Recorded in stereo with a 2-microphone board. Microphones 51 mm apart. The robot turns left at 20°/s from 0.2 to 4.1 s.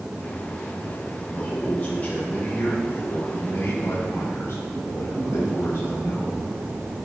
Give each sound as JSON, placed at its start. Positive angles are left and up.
{"t": 1.3, "sound": "a man speaking", "azimuth_deg": 150, "distance_m": 3.5}